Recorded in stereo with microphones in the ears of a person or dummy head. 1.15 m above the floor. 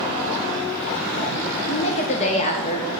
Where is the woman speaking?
35° left (ahead or behind), 0.6 m.